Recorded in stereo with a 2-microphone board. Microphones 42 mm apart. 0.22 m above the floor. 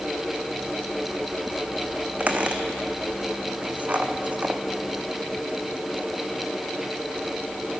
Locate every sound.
2.2 s a squeak: 40° right (ahead or behind), 0.8 m